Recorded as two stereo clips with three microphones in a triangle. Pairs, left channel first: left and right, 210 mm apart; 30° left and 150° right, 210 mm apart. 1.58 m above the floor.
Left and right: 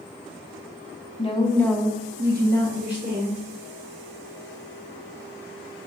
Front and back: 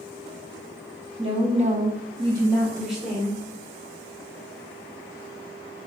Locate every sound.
1.2 s a woman speaking: 150° left, 1.1 m; by 3.4 s 60° right, 1.8 m